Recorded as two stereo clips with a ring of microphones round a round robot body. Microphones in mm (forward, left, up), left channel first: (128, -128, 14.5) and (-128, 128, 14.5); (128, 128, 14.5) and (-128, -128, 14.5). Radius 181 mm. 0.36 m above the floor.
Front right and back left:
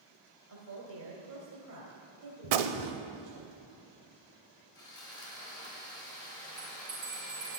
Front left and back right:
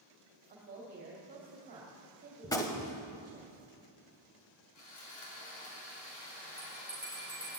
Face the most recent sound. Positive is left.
turn(degrees=130)